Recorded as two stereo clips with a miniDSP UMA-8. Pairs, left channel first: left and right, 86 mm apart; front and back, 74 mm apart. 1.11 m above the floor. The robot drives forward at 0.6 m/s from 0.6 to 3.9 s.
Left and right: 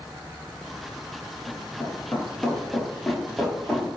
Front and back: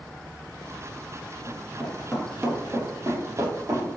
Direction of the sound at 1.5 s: 15° left.